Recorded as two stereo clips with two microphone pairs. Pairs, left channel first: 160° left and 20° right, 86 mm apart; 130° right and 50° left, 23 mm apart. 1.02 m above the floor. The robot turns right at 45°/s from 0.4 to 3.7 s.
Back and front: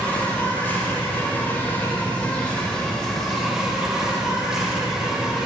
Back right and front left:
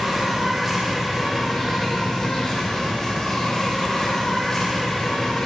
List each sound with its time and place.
0.0 s an insect: 120° left, 1.2 m; by 5.5 s 90° right, 1.2 m